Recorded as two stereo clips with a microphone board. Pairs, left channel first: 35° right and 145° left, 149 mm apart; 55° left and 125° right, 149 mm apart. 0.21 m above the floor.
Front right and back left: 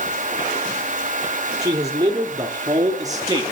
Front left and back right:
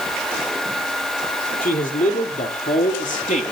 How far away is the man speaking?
About 4.5 m.